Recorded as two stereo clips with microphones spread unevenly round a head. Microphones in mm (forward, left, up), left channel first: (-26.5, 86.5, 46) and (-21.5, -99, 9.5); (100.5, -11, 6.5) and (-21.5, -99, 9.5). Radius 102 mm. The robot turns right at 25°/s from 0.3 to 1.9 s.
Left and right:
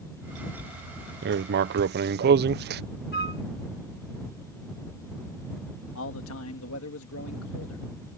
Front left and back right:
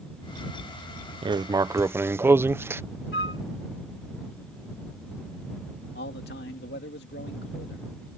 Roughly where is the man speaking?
Left.